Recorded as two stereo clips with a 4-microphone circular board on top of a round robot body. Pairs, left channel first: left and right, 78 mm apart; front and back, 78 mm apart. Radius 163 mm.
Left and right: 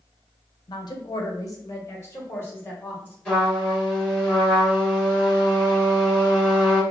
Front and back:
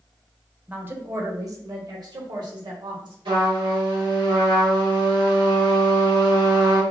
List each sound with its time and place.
0.7 s a woman speaking: 110° left, 0.9 m; by 3.1 s 155° left, 2.5 m
3.2 s a trumpet: 165° left, 2 m